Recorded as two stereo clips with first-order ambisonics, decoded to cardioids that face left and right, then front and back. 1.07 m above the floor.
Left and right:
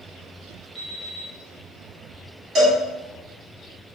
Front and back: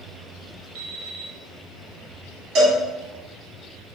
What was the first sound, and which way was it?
An alarm clock, 175° right.